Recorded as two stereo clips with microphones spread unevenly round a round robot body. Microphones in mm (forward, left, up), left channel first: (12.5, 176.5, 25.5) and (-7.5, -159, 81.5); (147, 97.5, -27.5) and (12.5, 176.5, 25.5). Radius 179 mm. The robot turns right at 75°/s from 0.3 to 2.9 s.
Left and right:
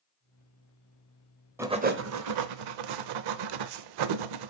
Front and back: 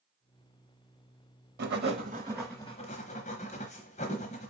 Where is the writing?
Straight behind, 0.7 m; by 4.5 s 80° right, 0.7 m.